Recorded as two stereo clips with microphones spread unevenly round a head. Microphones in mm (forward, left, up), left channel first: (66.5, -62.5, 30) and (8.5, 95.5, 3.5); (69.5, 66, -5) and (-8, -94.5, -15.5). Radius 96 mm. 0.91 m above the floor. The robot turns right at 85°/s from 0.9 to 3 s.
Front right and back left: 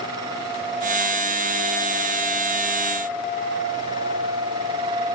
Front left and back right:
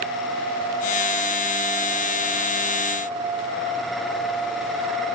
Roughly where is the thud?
No thud in this recording.